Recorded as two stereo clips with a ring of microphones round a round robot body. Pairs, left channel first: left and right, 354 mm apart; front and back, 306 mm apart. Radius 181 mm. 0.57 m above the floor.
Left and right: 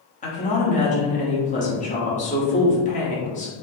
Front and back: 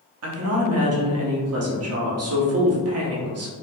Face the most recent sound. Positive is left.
turn(degrees=155)